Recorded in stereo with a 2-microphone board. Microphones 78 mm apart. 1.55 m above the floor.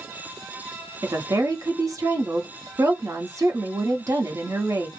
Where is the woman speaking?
45° right (ahead or behind), 0.9 m.